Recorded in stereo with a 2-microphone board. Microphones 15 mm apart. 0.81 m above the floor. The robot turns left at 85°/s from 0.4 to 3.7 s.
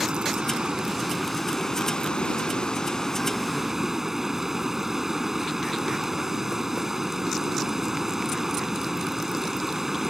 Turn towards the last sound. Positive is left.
turn(degrees=-20)